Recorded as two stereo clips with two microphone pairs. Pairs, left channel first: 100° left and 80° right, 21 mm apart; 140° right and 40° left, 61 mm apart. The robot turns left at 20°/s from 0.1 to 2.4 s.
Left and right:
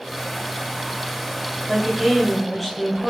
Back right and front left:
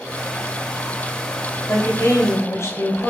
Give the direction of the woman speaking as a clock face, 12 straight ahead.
5 o'clock.